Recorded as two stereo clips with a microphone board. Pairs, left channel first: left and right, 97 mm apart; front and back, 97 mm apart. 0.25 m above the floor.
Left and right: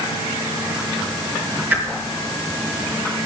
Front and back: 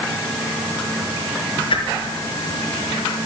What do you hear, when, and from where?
1.7 s a whoosh: 20° right, 4 m